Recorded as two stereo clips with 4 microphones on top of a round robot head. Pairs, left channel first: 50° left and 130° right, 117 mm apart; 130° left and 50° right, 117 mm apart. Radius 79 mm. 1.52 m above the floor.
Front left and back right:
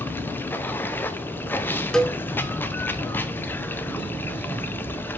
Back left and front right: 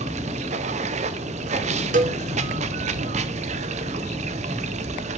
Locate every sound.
0.0 s running water: 20° right, 0.8 m
1.9 s a cowbell: 30° right, 0.8 m